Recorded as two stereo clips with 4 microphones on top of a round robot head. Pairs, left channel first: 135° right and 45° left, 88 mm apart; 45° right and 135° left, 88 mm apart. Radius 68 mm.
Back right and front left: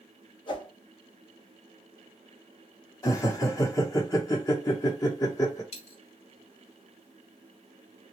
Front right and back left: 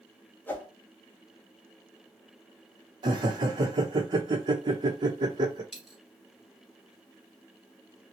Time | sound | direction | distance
0.5 | a whoosh | 115° right | 1.2 m
3.0 | laughter | 170° left | 0.9 m
5.7 | a dropped coin | 140° right | 1.1 m